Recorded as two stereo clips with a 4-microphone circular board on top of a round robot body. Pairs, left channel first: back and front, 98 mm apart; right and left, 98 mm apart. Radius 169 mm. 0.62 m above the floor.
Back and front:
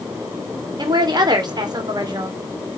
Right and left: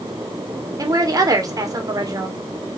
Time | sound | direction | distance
0.8 | a woman speaking | 40° left | 2.5 m